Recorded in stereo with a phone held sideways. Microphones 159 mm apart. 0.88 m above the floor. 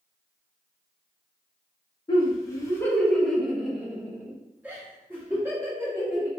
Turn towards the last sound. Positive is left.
turn(degrees=-15)  # may be behind; listen again after turning